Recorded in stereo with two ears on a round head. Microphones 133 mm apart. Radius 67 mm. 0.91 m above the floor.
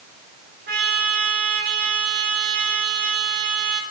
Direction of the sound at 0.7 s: 70° right (ahead or behind).